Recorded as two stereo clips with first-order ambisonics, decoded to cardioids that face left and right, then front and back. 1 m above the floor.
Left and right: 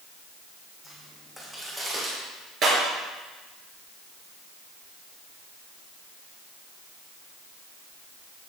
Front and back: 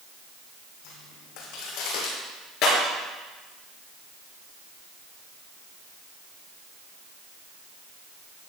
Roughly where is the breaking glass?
Ahead right.